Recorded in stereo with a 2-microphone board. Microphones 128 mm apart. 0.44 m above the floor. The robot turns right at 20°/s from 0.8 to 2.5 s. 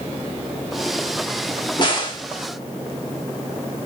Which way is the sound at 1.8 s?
35° left (ahead or behind).